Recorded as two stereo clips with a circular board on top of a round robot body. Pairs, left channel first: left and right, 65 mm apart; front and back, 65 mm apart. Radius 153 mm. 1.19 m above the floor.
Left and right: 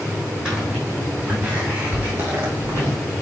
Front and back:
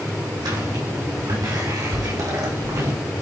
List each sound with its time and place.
0.5 s footsteps: 170° right, 4 m; by 3.0 s 145° right, 4 m